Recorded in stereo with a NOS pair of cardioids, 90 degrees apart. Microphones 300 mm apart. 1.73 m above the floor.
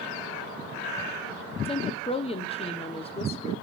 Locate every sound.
1.6 s a woman speaking: 20° left, 1.5 m